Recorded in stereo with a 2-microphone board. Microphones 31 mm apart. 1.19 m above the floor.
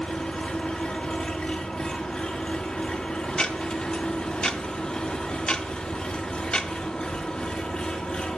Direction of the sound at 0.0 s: 40° left (ahead or behind).